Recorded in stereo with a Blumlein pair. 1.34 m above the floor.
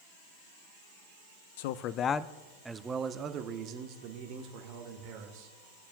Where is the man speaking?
55° left, 0.5 m; by 5.5 s 50° right, 1.9 m.